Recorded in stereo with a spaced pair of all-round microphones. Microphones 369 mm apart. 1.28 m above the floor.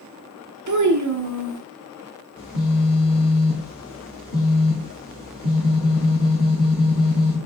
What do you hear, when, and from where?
0.7 s a child speaking: 50° right (ahead or behind), 0.6 m
2.4 s a phone buzzing: 60° left (ahead or behind), 1.4 m